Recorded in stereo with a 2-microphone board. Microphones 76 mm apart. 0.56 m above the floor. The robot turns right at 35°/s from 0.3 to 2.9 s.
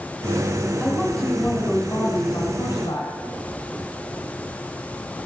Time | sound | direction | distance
0.8 | a woman speaking | 5° right | 2.5 m